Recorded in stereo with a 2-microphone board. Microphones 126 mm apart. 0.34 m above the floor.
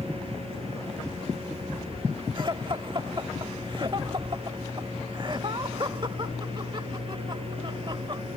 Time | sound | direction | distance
2.4 | laughter | 40° right (ahead or behind) | ?